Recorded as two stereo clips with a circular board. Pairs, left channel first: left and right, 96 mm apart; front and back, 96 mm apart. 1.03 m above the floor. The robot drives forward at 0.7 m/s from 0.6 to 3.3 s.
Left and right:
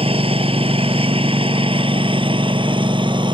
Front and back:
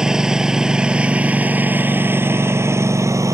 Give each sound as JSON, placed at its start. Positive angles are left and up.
{"t": 0.0, "sound": "a lawn mower", "azimuth_deg": -95}